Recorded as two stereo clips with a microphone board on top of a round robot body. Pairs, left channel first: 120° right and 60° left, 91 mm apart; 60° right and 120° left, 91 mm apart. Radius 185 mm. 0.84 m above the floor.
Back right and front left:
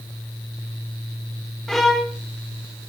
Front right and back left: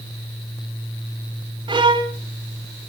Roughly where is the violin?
Behind left.